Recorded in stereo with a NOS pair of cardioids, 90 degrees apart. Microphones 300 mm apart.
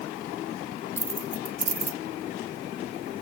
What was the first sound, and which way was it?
Keys jangling, 20° right.